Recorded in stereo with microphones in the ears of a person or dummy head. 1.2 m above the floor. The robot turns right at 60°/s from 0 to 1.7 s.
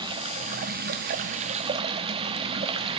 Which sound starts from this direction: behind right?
Running water, at 0.0 s.